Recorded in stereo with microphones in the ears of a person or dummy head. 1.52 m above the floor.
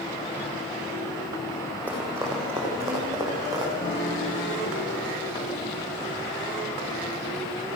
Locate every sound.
1.9 s running footsteps: 10° right (ahead or behind), 5 m; by 3.7 s 20° right (ahead or behind), 6.5 m
3.8 s a piano: 35° left (ahead or behind), 3 m